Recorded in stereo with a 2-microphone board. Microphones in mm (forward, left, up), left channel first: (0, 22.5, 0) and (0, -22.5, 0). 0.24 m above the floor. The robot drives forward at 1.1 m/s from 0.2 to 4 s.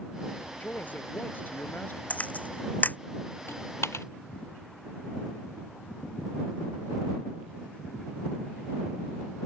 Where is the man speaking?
35° left (ahead or behind); by 2.0 s 50° left (ahead or behind).